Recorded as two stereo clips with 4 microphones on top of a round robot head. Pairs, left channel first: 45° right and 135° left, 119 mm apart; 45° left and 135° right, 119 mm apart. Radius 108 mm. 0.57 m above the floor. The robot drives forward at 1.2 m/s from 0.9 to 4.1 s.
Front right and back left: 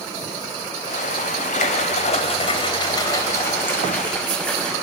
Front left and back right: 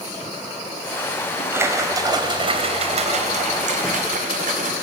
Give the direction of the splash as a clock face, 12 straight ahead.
2 o'clock.